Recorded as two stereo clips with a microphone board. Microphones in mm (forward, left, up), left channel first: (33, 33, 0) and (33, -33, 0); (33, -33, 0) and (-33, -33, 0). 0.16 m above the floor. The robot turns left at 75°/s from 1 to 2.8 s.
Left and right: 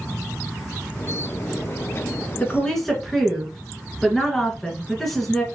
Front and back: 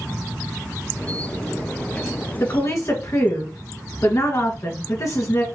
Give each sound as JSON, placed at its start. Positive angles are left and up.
{"t": 2.4, "sound": "a woman speaking", "azimuth_deg": 35, "distance_m": 1.8}